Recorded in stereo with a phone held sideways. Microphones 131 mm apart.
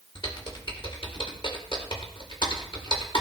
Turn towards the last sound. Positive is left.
turn(degrees=45)  # may be behind; listen again after turning